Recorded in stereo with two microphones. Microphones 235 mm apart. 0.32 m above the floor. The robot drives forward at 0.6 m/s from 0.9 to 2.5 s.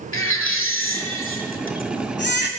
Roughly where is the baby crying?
Left.